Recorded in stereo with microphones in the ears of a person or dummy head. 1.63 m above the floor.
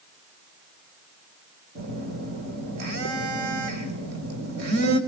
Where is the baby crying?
I don't hear a baby crying.